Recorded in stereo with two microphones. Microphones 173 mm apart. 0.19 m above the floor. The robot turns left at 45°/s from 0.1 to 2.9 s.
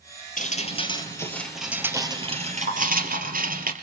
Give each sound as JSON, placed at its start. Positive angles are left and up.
{"t": 0.4, "sound": "dripping", "azimuth_deg": 55, "distance_m": 3.0}